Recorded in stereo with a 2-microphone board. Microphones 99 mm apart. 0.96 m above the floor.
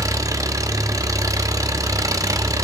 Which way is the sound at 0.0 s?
35° right (ahead or behind).